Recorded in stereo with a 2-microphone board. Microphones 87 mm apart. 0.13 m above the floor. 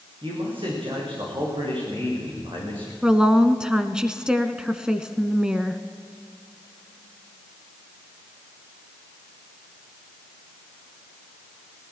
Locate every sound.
0.2 s a man speaking: 75° right (ahead or behind), 9 m
3.0 s a woman speaking: 10° right (ahead or behind), 1.1 m